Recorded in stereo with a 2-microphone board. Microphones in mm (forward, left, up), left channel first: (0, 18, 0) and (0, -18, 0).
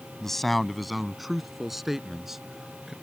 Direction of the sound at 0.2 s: 5° left (ahead or behind).